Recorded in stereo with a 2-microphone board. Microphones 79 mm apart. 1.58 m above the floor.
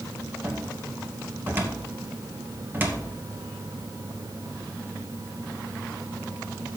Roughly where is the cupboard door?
Right.